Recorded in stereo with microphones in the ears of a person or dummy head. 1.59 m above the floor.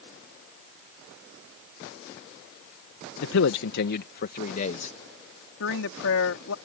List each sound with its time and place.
3.2 s a man speaking: 75° left (ahead or behind); by 5.0 s 40° left (ahead or behind)
5.6 s a woman speaking: 80° left